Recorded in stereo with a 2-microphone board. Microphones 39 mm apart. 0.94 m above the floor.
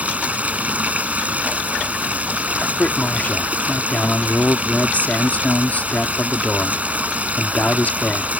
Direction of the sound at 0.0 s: 40° right (ahead or behind).